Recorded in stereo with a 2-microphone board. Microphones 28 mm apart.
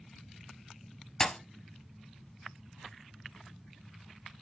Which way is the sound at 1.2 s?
15° left (ahead or behind).